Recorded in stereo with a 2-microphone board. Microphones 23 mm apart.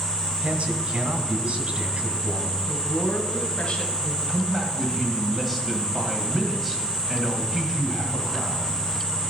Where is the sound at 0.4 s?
55° right (ahead or behind), 2.0 m.